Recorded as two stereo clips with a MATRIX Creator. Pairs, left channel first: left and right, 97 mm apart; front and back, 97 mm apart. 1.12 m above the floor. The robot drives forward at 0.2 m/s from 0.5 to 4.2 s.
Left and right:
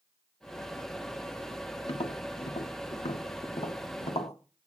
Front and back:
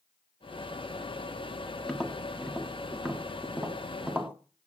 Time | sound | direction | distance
1.9 | tapping | 85° left | 1.6 m